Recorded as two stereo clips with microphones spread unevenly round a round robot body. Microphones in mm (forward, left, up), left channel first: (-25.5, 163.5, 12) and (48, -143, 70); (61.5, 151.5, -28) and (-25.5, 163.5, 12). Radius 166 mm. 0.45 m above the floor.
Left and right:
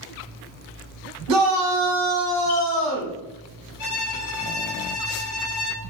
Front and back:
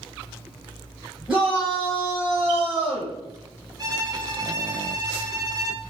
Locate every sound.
1.3 s a shout: 85° right, 1.6 m
3.8 s a violin: 110° left, 1.6 m